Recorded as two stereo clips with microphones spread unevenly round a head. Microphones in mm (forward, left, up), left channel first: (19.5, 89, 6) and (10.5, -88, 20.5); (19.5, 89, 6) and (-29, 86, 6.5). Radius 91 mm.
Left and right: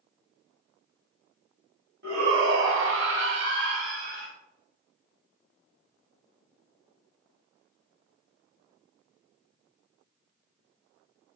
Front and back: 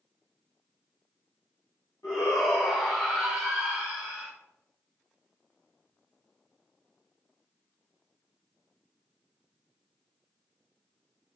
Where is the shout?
65° right, 1.6 m; by 4.3 s 135° right, 1.4 m.